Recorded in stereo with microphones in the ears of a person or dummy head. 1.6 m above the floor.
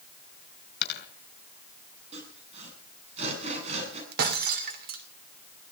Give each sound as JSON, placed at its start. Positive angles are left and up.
{"t": 0.8, "sound": "a dropped coin", "side_deg": 55, "distance_m": 3.5}
{"t": 2.1, "sound": "sawing", "side_deg": -40, "distance_m": 7.5}
{"t": 4.1, "sound": "breaking glass", "side_deg": -55, "distance_m": 2.5}